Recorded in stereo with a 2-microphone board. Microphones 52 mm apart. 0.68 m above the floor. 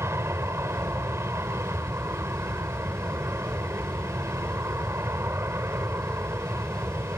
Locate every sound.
0.0 s an aircraft: 60° right (ahead or behind)